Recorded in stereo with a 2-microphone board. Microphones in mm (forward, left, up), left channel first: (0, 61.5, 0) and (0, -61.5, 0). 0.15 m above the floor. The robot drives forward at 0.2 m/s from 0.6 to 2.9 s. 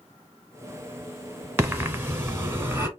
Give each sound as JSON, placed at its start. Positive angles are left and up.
{"t": 1.6, "sound": "breathing", "side_deg": -20, "distance_m": 1.0}